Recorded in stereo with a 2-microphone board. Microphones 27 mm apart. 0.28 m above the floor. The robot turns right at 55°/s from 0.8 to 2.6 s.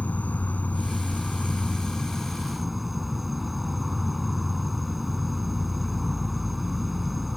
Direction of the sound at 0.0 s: 90° left.